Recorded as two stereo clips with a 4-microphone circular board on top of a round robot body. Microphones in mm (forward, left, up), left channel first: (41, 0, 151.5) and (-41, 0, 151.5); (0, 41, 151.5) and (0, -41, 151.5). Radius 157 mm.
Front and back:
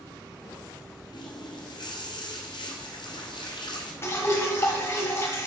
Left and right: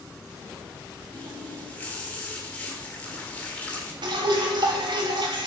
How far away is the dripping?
About 1.5 m.